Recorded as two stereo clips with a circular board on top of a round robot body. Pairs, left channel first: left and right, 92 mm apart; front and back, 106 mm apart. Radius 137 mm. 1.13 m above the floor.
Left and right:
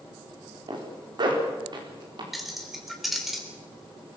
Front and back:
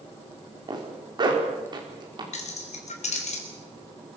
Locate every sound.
0.7 s a zipper: 130° right, 4.5 m
2.3 s keys jangling: straight ahead, 3.5 m